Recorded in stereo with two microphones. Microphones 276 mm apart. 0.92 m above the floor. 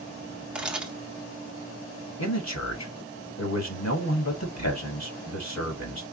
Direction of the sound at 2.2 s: 70° left (ahead or behind).